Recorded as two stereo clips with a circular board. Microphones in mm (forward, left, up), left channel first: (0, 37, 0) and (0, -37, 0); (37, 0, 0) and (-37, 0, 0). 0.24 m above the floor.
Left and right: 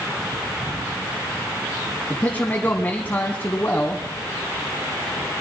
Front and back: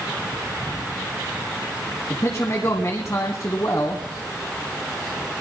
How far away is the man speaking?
About 1.8 m.